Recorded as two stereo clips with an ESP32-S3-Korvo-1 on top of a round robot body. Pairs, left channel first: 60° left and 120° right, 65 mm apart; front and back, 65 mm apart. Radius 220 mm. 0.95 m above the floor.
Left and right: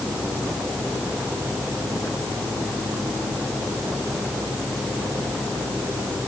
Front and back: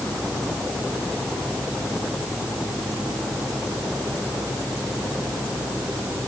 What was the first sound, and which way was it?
Only background noise.